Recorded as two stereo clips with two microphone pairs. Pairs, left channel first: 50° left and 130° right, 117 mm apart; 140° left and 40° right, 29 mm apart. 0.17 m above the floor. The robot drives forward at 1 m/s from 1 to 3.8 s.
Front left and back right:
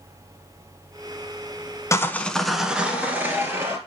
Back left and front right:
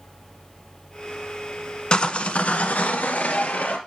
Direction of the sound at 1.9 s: 100° left.